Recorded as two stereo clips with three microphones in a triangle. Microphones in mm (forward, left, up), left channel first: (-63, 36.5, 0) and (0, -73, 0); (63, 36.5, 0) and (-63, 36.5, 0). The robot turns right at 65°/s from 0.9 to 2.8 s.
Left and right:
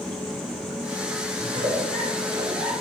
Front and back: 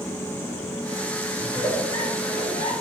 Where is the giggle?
70° right, 6 m; by 2.7 s 15° left, 6 m.